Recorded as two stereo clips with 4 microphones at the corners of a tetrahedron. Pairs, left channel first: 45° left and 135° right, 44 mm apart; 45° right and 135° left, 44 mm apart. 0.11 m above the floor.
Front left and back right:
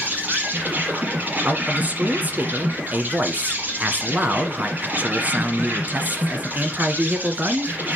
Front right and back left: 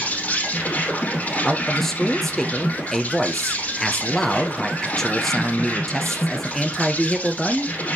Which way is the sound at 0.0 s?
90° right.